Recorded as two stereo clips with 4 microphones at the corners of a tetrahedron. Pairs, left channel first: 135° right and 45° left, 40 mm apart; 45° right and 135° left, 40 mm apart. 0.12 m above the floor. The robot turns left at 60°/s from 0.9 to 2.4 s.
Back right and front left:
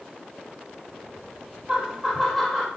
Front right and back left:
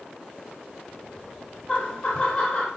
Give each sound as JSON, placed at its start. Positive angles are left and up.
{"t": 1.7, "sound": "laughter", "azimuth_deg": -10, "distance_m": 1.1}